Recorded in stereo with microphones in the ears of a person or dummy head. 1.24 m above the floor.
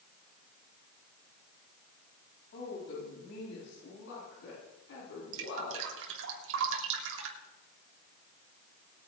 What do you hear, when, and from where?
2.5 s a woman speaking: 75° left (ahead or behind), 7.5 m; by 5.8 s 90° left, 11 m
5.3 s dripping: 70° right (ahead or behind), 3 m